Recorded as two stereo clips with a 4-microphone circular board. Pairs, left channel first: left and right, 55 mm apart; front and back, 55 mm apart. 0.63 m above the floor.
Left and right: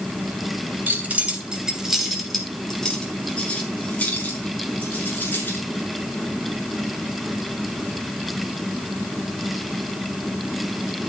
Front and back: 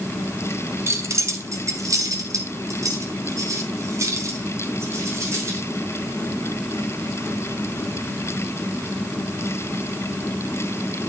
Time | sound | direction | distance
0.9 | keys jangling | 145° right | 2.5 m